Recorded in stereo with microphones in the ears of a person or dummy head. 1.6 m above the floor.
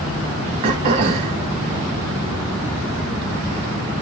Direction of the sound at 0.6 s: 25° right (ahead or behind).